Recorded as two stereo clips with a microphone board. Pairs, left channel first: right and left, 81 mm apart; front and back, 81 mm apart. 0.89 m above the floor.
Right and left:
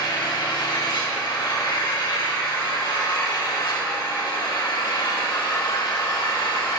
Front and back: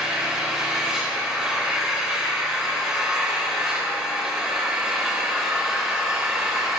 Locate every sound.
0.0 s an engine running: 100° right, 2.5 m